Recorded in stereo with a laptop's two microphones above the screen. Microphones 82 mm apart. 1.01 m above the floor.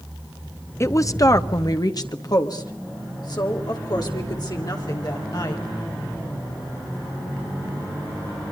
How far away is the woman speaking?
About 0.7 m.